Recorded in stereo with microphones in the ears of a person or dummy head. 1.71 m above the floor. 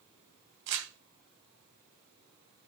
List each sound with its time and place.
0.7 s crumpling: 60° right (ahead or behind), 3 m